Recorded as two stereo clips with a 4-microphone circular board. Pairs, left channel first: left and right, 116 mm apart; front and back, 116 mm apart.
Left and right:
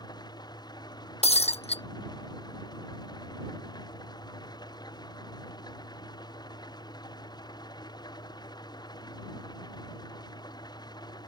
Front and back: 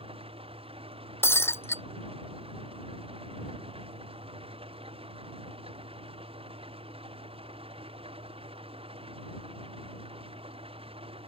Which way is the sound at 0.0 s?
145° left.